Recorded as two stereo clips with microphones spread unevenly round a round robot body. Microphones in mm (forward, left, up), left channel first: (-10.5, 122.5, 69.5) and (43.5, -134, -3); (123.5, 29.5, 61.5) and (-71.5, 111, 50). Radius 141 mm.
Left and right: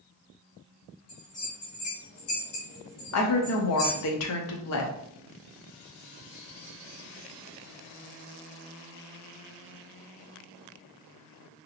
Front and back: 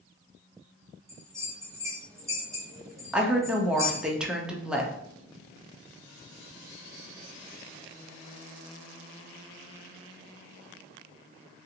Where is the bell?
80° left, 1.1 m.